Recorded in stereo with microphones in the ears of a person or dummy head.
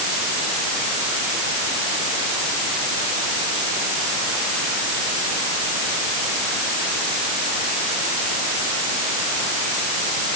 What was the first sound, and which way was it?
Only background noise.